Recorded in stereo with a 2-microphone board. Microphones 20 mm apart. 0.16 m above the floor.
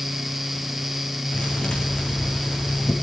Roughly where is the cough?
No cough in this recording.